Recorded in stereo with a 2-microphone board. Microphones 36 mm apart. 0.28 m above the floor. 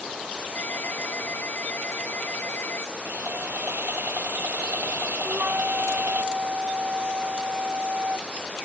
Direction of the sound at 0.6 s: 75° left (ahead or behind).